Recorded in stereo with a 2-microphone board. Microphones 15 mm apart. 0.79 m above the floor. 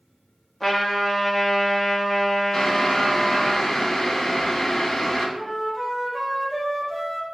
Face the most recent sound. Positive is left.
turn(degrees=-30)  # may be behind; listen again after turning